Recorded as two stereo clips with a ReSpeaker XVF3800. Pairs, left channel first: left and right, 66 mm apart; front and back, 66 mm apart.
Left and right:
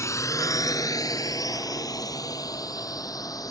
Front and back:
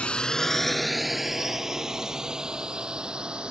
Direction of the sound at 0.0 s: 70° left.